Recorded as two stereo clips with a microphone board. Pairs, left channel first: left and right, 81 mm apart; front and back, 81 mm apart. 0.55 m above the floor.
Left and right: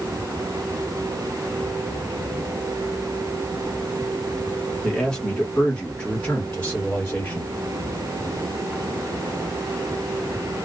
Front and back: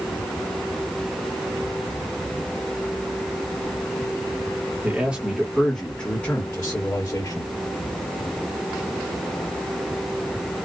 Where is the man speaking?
165° left, 1.2 m; by 7.5 s 30° left, 1.8 m.